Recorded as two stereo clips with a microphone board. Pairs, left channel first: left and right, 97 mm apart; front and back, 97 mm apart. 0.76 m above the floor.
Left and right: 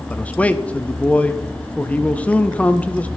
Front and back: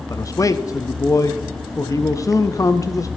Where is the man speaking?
25° left, 0.5 m.